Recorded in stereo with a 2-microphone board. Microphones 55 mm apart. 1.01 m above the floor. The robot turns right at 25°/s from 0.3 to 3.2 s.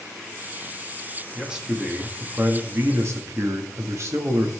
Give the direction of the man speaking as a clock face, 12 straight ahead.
6 o'clock.